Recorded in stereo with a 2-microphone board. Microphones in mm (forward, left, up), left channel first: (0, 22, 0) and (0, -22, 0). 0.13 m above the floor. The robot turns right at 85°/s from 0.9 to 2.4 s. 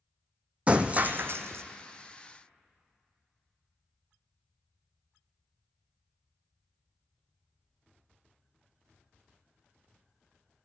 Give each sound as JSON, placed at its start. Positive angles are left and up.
{"t": 0.7, "sound": "breaking glass", "azimuth_deg": -150, "distance_m": 0.7}